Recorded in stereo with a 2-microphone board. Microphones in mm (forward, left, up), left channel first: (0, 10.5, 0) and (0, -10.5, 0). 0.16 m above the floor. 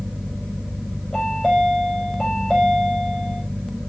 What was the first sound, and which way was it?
A chime, 30° left (ahead or behind).